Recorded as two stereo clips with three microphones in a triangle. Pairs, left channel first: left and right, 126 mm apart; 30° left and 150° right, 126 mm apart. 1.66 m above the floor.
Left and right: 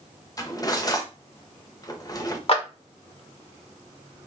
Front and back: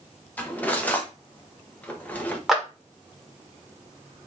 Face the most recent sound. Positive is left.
turn(degrees=120)